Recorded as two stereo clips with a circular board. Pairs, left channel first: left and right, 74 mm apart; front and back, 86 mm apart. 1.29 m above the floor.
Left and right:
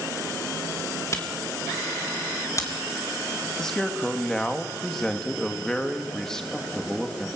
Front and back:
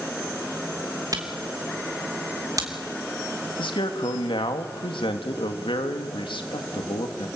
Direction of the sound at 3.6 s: 10° left.